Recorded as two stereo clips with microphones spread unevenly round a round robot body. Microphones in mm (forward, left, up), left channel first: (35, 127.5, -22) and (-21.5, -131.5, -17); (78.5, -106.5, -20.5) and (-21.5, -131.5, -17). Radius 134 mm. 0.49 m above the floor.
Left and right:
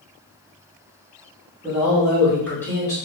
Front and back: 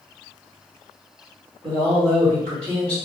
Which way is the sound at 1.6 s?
175° right.